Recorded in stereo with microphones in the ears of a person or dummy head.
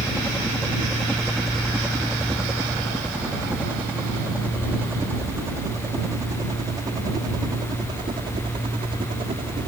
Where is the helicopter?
5° left (ahead or behind); by 9.7 s 30° right (ahead or behind).